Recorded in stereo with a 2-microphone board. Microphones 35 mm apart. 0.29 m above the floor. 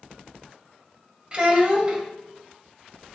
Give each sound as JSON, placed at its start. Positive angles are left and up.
{"t": 1.3, "sound": "a child speaking", "side_deg": -30, "distance_m": 0.6}